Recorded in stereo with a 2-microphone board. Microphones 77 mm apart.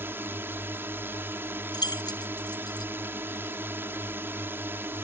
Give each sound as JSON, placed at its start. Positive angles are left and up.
{"t": 0.0, "sound": "a drone", "side_deg": -30}
{"t": 1.7, "sound": "keys jangling", "side_deg": 65}